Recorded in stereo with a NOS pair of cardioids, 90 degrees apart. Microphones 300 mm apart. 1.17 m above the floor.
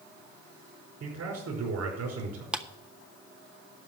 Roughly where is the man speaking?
Ahead right.